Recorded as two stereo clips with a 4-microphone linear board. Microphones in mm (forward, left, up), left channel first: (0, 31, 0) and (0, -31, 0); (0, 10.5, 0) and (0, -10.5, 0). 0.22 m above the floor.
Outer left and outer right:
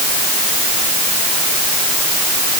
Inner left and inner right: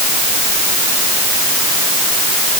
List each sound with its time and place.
Only background noise.